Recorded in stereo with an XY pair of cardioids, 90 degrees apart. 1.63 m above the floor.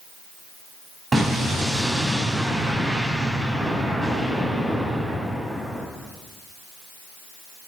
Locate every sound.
1.1 s an explosion: 30° right, 6 m